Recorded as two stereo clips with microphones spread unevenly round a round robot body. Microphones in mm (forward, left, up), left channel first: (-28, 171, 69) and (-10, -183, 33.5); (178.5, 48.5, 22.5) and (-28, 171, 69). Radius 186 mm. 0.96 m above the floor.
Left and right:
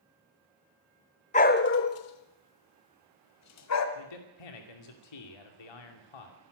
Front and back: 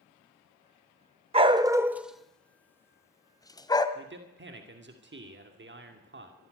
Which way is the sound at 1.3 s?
140° left.